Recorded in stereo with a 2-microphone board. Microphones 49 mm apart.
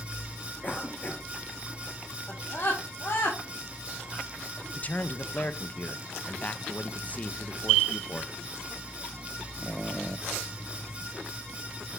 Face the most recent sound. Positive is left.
turn(degrees=35)  # may be behind; listen again after turning